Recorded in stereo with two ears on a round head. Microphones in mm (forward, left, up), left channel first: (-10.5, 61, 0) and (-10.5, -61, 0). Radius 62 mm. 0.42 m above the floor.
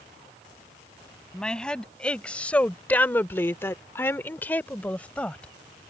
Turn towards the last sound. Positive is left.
turn(degrees=10)  # may be behind; listen again after turning